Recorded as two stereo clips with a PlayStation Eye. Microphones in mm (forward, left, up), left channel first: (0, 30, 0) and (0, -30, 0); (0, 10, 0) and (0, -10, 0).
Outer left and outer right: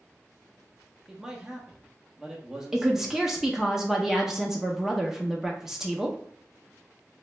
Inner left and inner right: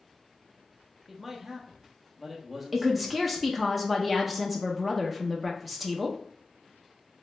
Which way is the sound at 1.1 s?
10° right (ahead or behind).